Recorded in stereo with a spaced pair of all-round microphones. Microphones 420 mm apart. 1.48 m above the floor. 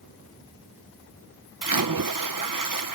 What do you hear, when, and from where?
1.6 s a splash: 50° right (ahead or behind)